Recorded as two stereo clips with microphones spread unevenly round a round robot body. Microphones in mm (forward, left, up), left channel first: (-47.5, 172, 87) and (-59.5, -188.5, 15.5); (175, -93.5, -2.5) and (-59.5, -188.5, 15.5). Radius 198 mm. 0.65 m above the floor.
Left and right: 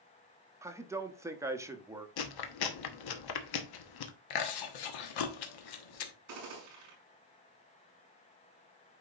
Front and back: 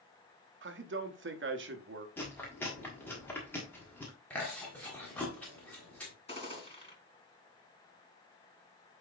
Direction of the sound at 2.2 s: 100° left.